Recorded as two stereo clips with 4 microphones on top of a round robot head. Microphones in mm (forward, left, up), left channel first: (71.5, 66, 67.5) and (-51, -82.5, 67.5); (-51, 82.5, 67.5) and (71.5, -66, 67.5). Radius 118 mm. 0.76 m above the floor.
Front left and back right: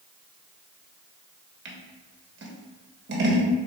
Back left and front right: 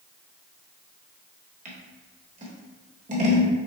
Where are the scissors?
105° right, 1.2 m.